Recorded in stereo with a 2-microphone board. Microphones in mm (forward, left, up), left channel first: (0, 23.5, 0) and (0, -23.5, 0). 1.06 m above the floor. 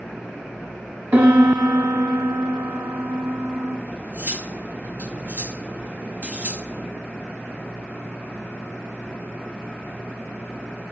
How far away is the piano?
About 1.3 m.